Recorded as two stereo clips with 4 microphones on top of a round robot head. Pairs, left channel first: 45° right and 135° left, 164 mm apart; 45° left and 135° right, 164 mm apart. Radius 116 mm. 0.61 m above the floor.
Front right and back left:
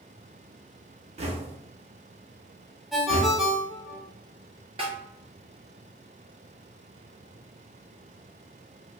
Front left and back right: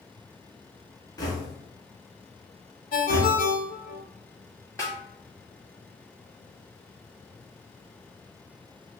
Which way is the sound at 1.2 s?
105° left.